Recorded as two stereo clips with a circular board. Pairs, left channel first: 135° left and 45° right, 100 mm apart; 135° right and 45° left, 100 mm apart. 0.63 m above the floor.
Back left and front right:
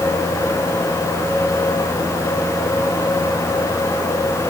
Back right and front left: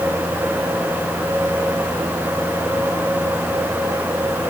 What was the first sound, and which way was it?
Only background noise.